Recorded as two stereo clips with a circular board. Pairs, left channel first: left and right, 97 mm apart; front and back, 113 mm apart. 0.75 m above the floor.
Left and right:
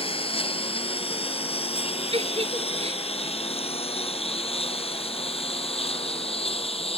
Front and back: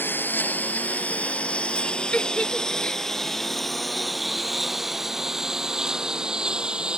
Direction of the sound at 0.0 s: 70° left.